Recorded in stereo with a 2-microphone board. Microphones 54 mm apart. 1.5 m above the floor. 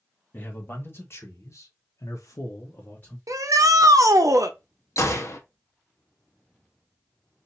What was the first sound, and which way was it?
A man speaking, 35° left (ahead or behind).